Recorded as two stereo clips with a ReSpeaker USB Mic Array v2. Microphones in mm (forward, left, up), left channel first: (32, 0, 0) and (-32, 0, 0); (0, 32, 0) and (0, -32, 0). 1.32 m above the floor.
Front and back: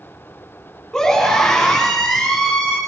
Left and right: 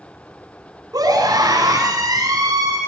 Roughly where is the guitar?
I don't hear a guitar.